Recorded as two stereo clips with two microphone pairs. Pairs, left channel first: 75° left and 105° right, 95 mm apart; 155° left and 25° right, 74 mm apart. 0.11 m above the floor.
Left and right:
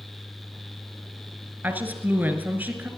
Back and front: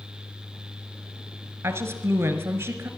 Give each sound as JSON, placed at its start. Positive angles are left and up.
{"t": 1.6, "sound": "a woman speaking", "azimuth_deg": -50, "distance_m": 1.3}